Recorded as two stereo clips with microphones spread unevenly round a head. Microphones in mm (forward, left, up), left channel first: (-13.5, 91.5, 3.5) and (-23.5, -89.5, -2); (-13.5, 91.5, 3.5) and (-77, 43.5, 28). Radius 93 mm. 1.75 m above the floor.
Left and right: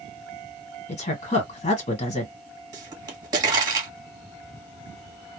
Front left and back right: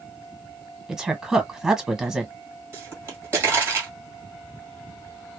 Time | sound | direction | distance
0.9 | a woman speaking | 140° left | 1.4 m
2.7 | a pop | 155° right | 1.4 m